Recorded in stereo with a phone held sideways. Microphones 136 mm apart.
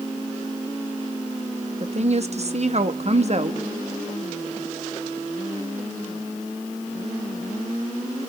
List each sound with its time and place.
1.8 s a woman speaking: 50° right (ahead or behind), 0.9 m